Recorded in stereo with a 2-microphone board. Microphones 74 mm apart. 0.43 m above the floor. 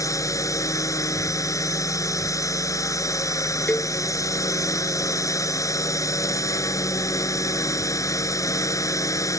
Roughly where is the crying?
No crying in this recording.